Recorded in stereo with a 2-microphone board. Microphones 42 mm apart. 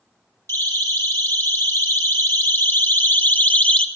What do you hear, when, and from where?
0.5 s a siren: 70° left (ahead or behind), 5 m; by 3.9 s 25° left (ahead or behind), 1.6 m